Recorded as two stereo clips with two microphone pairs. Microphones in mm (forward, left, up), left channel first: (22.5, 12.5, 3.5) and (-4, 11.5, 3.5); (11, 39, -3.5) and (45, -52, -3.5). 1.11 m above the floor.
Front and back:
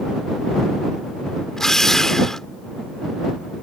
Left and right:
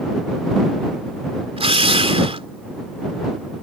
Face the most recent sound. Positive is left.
turn(degrees=-70)